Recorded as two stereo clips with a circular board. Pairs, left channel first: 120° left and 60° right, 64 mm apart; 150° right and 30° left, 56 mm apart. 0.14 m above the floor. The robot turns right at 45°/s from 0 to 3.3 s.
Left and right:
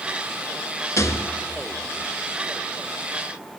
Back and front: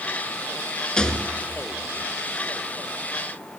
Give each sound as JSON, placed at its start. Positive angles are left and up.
{"t": 1.0, "sound": "a rattle", "azimuth_deg": 135, "distance_m": 0.6}